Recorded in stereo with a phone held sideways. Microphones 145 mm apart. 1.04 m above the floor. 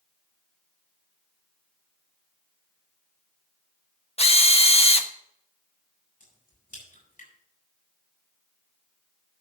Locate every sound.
4.2 s a drill: 45° left (ahead or behind), 1.0 m
6.2 s a crack: 70° left (ahead or behind), 7.5 m